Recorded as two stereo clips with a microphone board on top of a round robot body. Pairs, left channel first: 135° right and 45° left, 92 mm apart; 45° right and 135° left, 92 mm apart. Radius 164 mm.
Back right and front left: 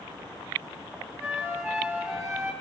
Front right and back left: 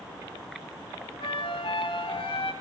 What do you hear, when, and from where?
1.2 s a flute: 35° right, 5 m